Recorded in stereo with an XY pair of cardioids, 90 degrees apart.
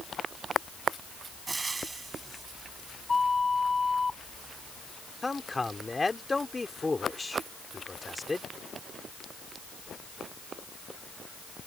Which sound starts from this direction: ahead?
A man speaking, at 5.2 s.